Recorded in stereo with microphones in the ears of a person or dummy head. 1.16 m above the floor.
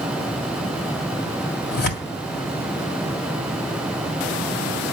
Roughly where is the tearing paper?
Left.